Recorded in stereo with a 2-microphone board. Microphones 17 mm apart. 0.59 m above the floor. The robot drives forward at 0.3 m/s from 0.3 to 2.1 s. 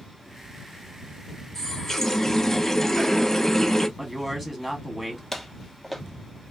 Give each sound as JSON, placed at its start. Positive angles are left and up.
{"t": 1.6, "sound": "a running tap", "side_deg": 20, "distance_m": 0.8}
{"t": 4.0, "sound": "a man speaking", "side_deg": -10, "distance_m": 0.8}
{"t": 5.3, "sound": "footsteps", "side_deg": 10, "distance_m": 0.6}